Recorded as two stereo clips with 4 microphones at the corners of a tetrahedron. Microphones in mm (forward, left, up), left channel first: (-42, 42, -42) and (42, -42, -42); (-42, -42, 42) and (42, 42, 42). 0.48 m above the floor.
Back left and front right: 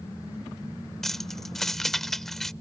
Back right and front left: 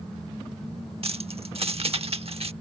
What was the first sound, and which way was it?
Keys jangling, 50° left.